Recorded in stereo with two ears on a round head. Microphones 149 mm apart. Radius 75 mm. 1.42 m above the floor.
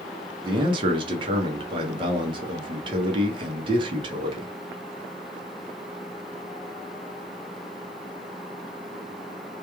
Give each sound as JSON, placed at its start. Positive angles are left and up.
{"t": 0.4, "sound": "a man speaking", "side_deg": -30, "distance_m": 0.7}